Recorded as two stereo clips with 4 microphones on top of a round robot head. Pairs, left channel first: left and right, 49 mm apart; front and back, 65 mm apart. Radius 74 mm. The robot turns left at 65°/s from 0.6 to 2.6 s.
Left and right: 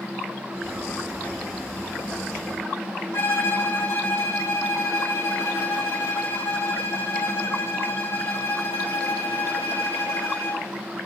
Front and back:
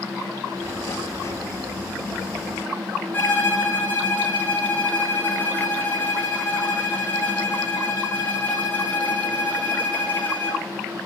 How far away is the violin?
About 5.5 m.